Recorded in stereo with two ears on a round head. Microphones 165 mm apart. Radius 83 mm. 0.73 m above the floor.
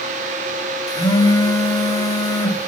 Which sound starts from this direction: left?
A phone buzzing, at 0.9 s.